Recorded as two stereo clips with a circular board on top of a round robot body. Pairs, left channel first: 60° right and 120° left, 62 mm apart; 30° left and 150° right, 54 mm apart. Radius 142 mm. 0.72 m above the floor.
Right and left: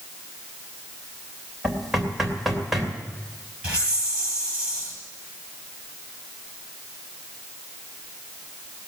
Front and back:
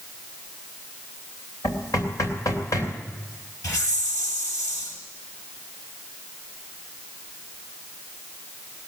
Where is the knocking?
35° left, 3 m.